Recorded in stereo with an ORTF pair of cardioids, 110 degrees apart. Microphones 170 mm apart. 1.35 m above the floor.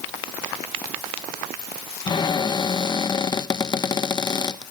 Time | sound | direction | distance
2.1 | a cupboard door | 25° left | 0.8 m